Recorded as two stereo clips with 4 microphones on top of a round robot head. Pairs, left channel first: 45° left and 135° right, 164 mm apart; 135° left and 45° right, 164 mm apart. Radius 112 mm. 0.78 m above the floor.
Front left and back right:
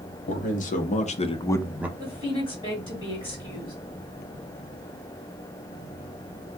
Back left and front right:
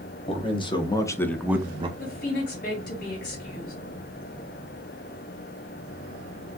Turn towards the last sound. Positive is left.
turn(degrees=115)